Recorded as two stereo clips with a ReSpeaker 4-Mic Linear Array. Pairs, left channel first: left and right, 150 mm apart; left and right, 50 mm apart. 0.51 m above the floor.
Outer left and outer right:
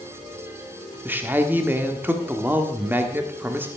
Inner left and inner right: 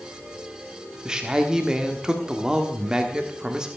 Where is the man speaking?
15° right (ahead or behind), 1.3 m.